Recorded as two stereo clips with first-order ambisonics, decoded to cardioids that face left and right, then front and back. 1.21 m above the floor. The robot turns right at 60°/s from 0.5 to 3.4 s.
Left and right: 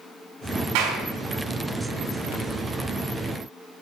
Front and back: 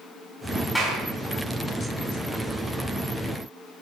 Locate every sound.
0.8 s a clap: 85° right, 7 m; by 1.0 s 65° right, 7 m